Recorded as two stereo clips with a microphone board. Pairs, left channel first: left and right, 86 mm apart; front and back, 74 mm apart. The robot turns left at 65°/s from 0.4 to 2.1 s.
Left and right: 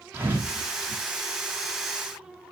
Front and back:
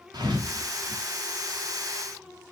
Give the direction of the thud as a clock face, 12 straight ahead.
5 o'clock.